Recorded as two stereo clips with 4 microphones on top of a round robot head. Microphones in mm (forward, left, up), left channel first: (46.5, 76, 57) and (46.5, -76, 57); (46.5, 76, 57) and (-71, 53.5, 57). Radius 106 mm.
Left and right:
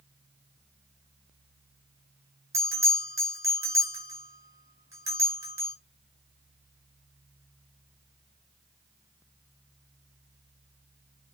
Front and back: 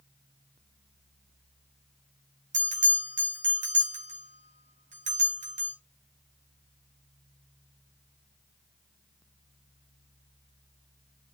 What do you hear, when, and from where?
2.5 s a bell: 165° right, 4.5 m